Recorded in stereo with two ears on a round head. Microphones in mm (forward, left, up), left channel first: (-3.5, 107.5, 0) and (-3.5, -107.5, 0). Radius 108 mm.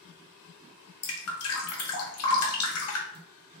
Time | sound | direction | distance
1.0 | dripping | 65° left (ahead or behind) | 0.7 m